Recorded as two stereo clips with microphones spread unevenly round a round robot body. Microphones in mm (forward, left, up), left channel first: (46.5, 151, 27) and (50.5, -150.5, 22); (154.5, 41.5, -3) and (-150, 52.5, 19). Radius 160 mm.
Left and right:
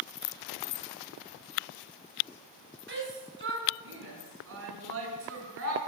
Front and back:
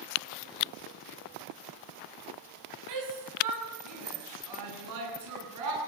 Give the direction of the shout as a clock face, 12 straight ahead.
5 o'clock.